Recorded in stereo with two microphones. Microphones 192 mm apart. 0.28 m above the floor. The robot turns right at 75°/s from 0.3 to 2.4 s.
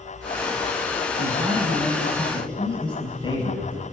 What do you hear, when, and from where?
1.2 s a man speaking: 65° right, 5.5 m; by 3.8 s 30° left, 5.5 m